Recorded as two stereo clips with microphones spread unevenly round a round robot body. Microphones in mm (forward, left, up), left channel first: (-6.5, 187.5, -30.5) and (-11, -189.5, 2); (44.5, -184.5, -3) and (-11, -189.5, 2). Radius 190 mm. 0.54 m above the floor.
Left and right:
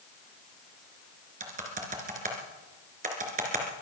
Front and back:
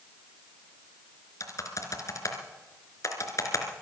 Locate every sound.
1.4 s typing on a keyboard: 20° right, 3 m